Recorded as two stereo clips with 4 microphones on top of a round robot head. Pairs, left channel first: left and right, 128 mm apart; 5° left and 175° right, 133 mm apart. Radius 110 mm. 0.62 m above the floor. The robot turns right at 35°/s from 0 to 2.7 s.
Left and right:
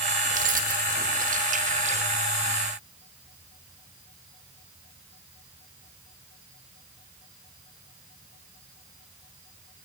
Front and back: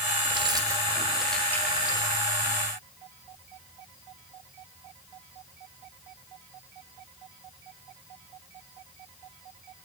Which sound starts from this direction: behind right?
Keys jangling, at 0.3 s.